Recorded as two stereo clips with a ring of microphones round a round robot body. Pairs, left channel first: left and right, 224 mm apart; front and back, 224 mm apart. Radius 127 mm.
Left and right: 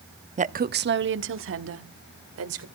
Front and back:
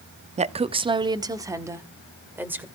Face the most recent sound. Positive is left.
turn(degrees=-100)